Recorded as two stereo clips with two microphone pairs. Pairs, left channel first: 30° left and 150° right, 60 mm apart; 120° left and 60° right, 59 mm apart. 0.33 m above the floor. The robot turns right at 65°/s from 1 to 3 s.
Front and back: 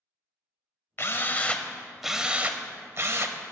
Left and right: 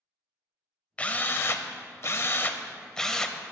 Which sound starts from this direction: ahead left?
A drill, at 1.0 s.